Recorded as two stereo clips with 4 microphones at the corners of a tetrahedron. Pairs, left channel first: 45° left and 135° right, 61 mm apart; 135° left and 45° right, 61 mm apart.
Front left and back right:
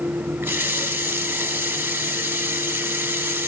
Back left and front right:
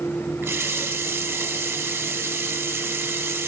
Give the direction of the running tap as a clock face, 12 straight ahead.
3 o'clock.